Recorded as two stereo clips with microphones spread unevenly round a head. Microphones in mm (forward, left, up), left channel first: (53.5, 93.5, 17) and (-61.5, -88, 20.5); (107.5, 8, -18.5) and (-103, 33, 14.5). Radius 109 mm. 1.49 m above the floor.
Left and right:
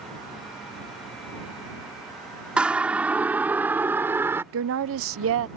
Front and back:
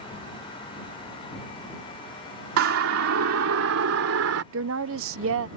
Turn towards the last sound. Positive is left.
turn(degrees=-150)